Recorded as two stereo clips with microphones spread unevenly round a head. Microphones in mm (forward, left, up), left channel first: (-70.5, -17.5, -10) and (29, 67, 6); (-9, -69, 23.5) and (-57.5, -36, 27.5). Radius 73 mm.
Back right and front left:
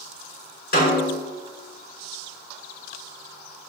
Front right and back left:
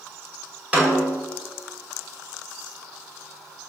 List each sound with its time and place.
0.7 s a snare drum: 145° right, 5 m